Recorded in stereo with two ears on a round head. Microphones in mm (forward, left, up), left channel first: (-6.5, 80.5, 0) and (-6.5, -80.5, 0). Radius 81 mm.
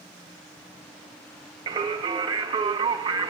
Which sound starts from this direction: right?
Singing, at 1.7 s.